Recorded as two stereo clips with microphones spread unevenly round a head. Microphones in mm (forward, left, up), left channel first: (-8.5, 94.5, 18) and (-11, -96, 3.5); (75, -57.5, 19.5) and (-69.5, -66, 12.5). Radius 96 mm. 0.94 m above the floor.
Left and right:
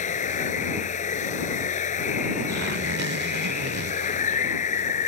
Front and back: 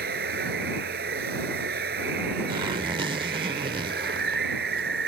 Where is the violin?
No violin in this recording.